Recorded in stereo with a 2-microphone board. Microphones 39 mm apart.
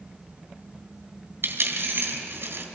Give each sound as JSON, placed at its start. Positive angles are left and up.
{"t": 1.4, "sound": "a dropped coin", "side_deg": -70, "distance_m": 2.5}